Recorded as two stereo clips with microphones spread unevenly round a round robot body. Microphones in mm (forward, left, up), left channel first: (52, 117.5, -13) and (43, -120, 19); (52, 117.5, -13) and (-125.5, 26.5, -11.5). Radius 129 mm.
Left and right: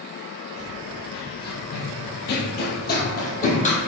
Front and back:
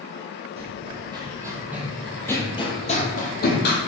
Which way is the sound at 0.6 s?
150° left.